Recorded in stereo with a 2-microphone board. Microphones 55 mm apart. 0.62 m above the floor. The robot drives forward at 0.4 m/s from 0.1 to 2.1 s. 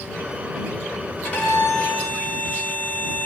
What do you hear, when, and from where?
1.2 s a violin: 25° left (ahead or behind), 1.4 m